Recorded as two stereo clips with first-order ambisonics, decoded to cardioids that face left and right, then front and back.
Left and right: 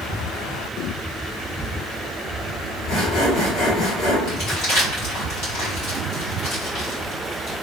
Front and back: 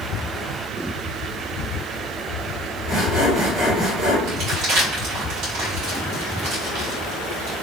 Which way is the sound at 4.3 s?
135° left.